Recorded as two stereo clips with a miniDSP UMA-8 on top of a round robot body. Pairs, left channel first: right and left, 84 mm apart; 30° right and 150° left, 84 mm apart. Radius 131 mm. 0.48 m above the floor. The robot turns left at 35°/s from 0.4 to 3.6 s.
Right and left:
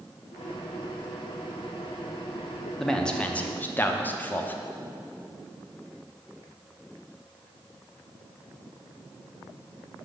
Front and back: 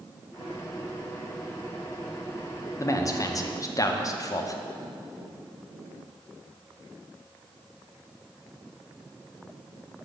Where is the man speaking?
5° right, 1.0 m; by 4.6 s 35° right, 1.0 m.